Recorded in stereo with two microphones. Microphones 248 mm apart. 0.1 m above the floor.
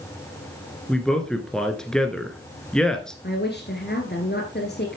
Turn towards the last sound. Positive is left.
turn(degrees=45)  # may be behind; listen again after turning